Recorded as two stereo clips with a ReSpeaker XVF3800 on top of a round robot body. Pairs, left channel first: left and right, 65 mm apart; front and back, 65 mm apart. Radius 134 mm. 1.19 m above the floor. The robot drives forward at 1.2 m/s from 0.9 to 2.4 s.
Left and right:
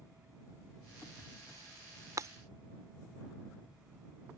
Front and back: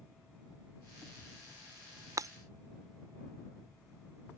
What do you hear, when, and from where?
2.2 s breaking glass: 140° right; by 2.3 s 145° right